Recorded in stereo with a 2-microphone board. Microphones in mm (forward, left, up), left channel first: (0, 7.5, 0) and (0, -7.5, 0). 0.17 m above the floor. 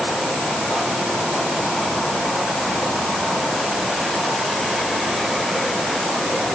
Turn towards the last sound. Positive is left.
No sound to turn to.